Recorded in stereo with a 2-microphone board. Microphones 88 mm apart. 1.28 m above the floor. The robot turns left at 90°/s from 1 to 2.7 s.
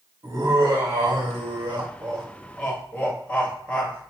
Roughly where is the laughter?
Ahead right.